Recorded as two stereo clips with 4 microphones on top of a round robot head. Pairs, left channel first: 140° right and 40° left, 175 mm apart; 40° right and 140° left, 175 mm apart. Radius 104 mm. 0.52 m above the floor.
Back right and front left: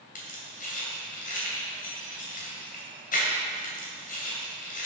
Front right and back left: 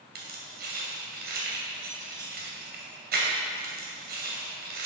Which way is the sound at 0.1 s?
175° left.